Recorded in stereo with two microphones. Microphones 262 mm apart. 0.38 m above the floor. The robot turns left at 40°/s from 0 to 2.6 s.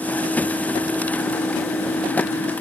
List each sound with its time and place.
Only background noise.